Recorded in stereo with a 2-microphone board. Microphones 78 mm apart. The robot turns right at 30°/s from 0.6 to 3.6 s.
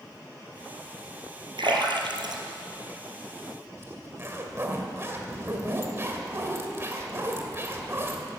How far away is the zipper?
About 1.8 m.